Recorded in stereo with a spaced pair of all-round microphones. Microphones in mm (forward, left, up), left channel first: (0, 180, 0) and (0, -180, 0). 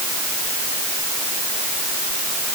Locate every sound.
Only background noise.